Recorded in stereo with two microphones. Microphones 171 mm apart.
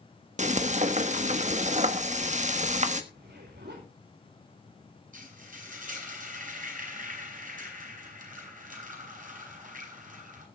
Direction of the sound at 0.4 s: 45° right (ahead or behind).